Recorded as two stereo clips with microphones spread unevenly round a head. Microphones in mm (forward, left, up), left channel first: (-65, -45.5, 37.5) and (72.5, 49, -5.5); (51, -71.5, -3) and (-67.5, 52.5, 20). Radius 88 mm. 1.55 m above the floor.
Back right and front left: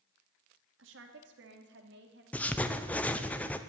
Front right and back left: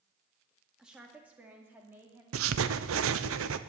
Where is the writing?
130° left, 0.8 m.